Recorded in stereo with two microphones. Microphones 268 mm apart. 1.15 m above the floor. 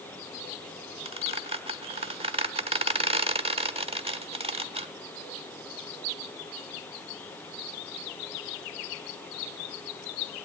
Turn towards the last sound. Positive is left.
turn(degrees=-20)  # may be behind; listen again after turning